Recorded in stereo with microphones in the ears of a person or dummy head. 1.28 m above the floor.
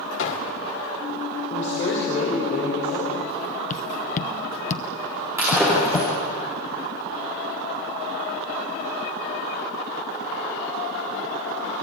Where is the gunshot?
70° left (ahead or behind), 2.5 m.